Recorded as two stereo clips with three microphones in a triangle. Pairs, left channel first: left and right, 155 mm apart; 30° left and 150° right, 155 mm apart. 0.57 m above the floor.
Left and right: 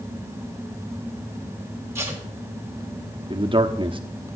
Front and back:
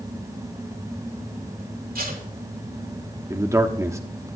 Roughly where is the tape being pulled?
Behind.